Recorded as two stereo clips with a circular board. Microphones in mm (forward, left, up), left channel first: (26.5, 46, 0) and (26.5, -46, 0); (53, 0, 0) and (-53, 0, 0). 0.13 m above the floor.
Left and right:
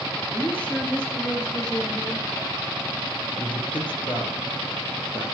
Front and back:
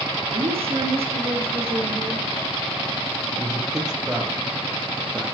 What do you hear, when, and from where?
0.3 s a woman speaking: 155° left, 7.5 m; by 2.2 s 150° left, 7 m
3.3 s a man speaking: 95° left, 4 m